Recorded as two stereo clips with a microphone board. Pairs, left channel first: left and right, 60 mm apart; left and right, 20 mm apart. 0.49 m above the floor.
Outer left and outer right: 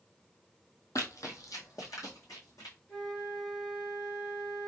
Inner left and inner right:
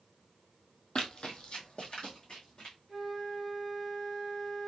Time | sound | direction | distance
0.9 | running footsteps | 65° left (ahead or behind) | 0.9 m
2.9 | a flute | 10° left (ahead or behind) | 1.6 m